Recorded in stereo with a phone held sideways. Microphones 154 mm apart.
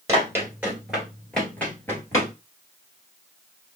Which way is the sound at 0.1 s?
20° right (ahead or behind).